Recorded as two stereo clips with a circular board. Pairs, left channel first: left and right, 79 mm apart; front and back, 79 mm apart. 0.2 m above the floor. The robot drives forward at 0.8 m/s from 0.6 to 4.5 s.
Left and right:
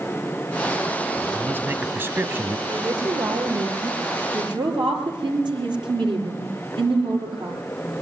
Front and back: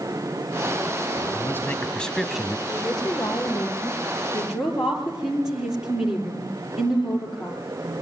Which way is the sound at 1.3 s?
35° right.